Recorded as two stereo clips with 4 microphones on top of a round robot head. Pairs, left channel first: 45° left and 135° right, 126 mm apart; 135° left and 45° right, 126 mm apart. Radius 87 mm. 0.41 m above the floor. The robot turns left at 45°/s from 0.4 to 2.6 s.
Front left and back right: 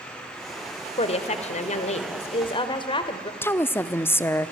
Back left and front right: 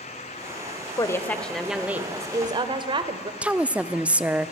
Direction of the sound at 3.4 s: 15° left.